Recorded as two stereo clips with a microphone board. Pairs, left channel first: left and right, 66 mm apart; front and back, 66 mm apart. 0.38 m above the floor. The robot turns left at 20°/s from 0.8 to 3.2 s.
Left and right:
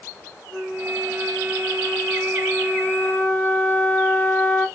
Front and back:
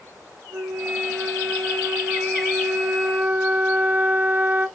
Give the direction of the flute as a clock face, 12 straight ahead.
6 o'clock.